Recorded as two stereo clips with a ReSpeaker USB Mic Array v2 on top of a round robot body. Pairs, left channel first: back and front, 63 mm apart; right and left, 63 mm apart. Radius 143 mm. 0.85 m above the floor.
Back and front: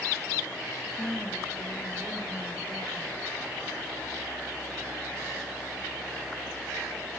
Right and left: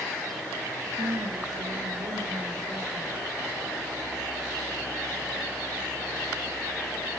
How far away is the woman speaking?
About 1.6 m.